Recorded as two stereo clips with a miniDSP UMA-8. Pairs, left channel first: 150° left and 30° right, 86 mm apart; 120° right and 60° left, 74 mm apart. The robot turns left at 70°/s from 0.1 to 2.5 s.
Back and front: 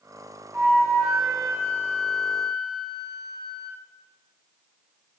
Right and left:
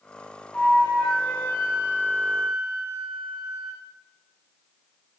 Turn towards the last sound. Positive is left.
turn(degrees=155)